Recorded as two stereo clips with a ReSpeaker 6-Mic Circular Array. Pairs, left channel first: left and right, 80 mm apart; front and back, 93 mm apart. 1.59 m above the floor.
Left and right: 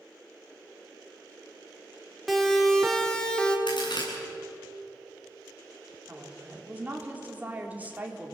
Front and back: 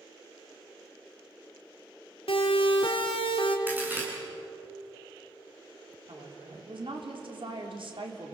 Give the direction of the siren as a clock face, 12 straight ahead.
12 o'clock.